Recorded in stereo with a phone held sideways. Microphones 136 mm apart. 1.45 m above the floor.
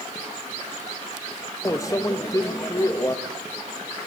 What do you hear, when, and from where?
1.6 s a microwave: 25° left (ahead or behind), 1.6 m